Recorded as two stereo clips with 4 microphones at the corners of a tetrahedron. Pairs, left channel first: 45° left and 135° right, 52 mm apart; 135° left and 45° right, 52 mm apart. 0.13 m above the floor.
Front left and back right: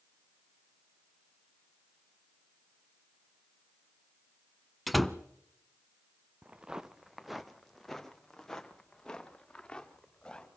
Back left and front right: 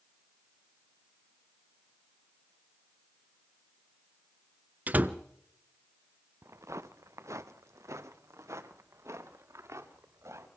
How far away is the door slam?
About 0.9 m.